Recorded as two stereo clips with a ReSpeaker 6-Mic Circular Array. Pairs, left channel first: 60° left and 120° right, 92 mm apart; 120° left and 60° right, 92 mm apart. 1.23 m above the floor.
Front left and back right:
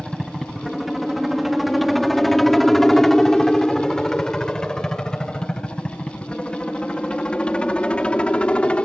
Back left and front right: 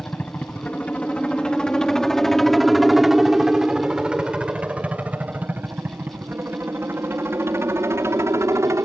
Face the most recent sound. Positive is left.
turn(degrees=-15)